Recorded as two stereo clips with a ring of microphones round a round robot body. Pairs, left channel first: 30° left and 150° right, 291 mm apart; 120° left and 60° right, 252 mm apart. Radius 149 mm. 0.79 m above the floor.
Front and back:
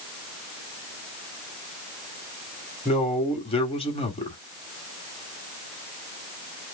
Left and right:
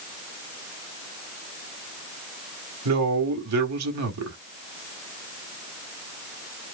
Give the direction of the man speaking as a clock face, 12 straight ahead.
1 o'clock.